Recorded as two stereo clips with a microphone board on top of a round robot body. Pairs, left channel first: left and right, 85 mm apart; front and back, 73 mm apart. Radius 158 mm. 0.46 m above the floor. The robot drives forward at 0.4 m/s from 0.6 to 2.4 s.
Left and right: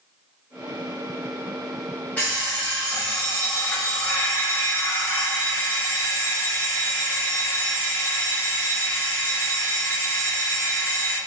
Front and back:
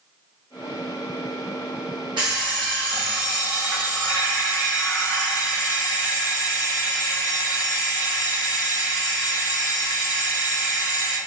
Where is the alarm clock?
160° left, 1.2 m; by 11.2 s 165° left, 1.3 m.